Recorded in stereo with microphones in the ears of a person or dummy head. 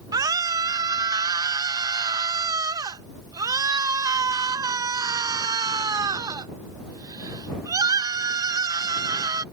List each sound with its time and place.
0.1 s a scream: 20° right (ahead or behind)